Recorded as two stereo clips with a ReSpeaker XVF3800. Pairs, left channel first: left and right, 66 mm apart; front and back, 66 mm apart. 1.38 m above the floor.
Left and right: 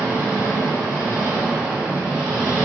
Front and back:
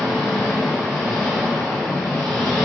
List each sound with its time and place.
0.0 s an engine running: 15° right, 1.6 m